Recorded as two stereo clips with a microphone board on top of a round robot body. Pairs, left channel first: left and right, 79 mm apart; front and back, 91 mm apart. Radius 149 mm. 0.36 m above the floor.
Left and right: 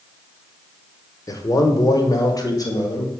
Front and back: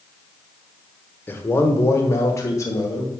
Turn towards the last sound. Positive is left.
turn(degrees=50)